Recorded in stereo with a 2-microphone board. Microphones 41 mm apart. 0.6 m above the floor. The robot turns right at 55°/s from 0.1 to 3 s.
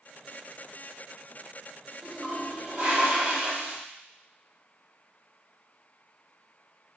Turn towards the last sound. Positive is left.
turn(degrees=-130)